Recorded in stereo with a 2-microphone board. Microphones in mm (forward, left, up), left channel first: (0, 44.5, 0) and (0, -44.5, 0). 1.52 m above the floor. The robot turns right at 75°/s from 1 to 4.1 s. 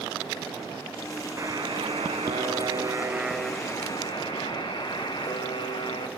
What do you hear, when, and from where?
1.4 s a buzzer: 150° right, 1.0 m; by 6.1 s 55° left, 1.0 m